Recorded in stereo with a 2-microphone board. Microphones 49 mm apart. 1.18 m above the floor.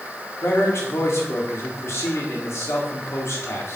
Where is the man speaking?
65° left (ahead or behind), 3.5 m.